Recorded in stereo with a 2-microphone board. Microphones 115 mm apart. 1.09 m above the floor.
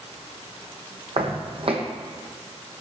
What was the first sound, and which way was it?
Footsteps, 55° right (ahead or behind).